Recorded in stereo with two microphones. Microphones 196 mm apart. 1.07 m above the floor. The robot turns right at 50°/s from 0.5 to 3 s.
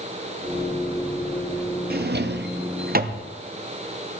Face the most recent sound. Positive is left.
turn(degrees=-50)  # may be behind; listen again after turning